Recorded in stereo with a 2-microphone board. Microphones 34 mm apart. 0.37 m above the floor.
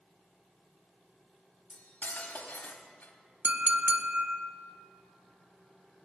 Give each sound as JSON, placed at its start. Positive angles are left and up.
{"t": 1.7, "sound": "cutlery clinking", "side_deg": 60, "distance_m": 1.0}
{"t": 3.4, "sound": "a clink", "side_deg": -50, "distance_m": 0.7}